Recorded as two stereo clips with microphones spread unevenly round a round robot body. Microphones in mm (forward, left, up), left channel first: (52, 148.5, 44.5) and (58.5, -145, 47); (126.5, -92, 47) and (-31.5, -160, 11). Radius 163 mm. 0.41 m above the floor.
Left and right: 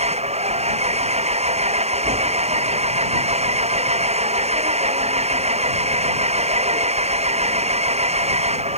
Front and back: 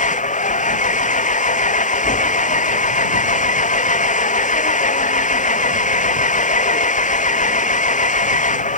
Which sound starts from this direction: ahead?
An engine running, at 0.0 s.